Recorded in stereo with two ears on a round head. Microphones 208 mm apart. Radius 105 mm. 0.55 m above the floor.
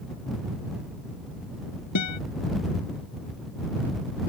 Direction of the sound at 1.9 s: 85° left.